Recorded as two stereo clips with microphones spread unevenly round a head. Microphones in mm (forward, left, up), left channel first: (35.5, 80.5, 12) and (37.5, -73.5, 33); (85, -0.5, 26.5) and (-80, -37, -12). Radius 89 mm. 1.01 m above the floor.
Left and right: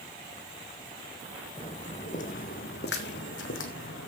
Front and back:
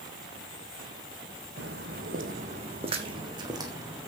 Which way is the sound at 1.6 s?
155° left.